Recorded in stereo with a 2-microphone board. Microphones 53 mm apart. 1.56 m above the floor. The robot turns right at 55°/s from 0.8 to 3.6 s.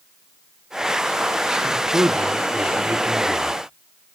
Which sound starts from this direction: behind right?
A man speaking, at 1.6 s.